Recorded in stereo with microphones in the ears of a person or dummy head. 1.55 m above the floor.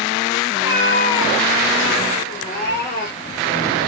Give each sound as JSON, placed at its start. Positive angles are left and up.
{"t": 0.5, "sound": "a cat meowing", "side_deg": 65, "distance_m": 3.0}